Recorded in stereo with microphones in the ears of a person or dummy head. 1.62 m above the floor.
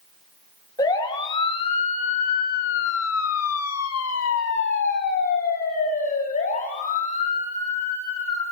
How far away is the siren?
About 3.5 m.